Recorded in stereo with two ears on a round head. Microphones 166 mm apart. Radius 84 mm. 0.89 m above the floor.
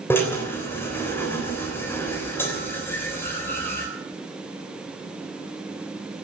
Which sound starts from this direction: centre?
A drill, at 0.1 s.